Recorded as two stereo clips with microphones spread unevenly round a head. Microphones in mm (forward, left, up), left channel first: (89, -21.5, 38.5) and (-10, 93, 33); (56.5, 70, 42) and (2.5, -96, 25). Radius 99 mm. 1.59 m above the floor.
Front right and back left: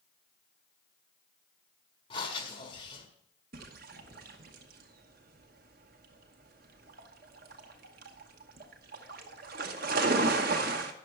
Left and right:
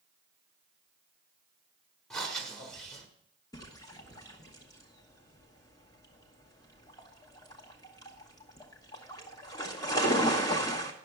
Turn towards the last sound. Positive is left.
turn(degrees=135)